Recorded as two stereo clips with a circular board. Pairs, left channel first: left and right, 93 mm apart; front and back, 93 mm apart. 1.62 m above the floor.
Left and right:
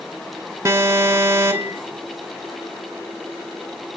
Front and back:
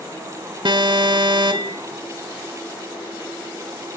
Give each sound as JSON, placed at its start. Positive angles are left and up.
{"t": 0.7, "sound": "an alarm", "azimuth_deg": -150, "distance_m": 1.5}